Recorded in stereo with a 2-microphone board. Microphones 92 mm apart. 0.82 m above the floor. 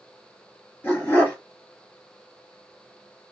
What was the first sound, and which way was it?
A dog barking, 20° left (ahead or behind).